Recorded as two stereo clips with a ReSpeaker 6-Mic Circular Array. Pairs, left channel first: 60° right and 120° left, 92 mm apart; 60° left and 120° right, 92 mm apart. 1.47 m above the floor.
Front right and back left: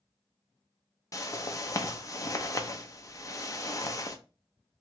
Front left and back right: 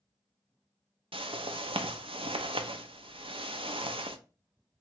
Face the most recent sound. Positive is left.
turn(degrees=-110)